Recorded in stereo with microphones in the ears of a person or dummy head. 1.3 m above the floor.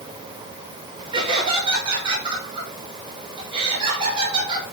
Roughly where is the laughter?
Right.